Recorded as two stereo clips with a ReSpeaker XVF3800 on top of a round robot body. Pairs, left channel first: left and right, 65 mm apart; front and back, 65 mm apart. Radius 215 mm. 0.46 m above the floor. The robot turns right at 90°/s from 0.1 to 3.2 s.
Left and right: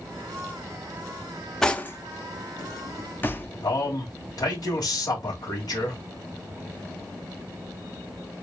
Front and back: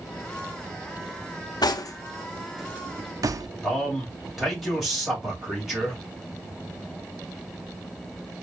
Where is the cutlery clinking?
5° left, 0.8 m; by 3.5 s 150° left, 0.8 m.